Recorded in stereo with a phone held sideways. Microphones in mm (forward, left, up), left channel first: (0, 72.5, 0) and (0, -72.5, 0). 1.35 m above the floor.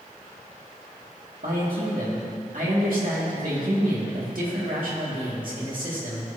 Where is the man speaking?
75° right (ahead or behind), 2.5 m.